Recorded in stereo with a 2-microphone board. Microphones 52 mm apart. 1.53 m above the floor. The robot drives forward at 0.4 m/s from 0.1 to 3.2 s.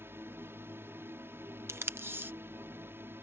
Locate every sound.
0.0 s a drone: 50° right (ahead or behind); by 3.2 s 45° right (ahead or behind)
1.7 s tape being pulled: 55° right (ahead or behind); by 2.3 s 45° right (ahead or behind)